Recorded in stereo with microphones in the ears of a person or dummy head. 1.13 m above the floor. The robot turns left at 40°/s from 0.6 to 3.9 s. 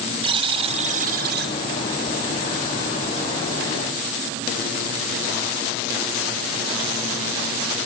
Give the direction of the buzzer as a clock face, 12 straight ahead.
1 o'clock.